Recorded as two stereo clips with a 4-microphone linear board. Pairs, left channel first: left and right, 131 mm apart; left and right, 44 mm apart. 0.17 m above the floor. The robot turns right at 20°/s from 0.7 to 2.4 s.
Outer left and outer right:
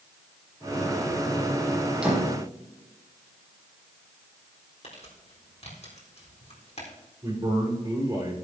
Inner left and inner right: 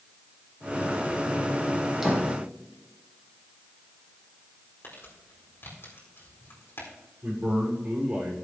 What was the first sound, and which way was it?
A door slam, 5° right (ahead or behind).